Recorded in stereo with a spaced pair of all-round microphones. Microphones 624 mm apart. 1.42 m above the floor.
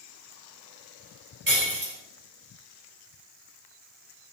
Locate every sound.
1.5 s breaking glass: 85° right, 3.5 m